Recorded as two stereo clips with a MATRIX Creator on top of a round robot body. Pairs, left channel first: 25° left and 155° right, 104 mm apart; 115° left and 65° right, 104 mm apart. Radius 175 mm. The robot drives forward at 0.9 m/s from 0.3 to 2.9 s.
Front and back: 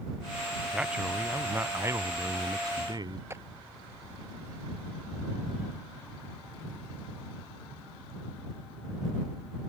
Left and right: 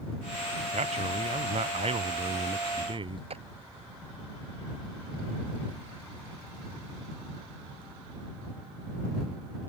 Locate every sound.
0.7 s a man speaking: 75° right; by 3.2 s 105° right
3.3 s a clap: 90° right